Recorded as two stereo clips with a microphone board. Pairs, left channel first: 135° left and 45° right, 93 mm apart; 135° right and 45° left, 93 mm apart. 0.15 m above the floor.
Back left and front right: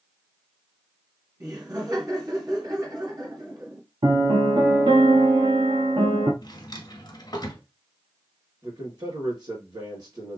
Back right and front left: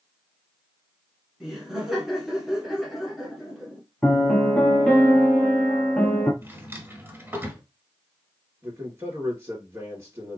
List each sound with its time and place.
1.4 s laughter: 40° right, 1.4 m
4.0 s a piano: 55° right, 1.1 m
6.4 s a drawer: 105° left, 1.2 m
8.6 s a man speaking: 10° right, 2.5 m